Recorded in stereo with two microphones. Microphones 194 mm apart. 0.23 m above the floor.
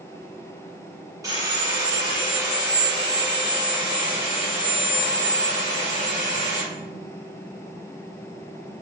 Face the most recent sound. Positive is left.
turn(degrees=-20)  # may be behind; listen again after turning